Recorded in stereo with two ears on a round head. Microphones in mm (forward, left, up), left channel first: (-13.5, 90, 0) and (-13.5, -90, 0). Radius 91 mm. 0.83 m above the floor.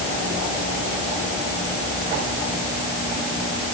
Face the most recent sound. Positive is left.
No sound to turn to.